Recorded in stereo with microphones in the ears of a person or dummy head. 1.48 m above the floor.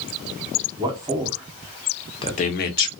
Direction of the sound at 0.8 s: 25° right (ahead or behind).